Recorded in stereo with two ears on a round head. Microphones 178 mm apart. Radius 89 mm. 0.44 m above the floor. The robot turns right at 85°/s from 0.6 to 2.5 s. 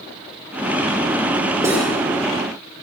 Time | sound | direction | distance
1.6 | cutlery clinking | 15° right (ahead or behind) | 6 m